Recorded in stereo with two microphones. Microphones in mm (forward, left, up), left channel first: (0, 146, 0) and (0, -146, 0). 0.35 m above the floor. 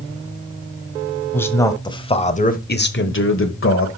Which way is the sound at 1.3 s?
5° left (ahead or behind).